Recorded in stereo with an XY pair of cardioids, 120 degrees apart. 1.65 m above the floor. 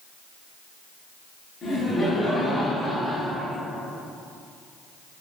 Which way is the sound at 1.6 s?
25° left.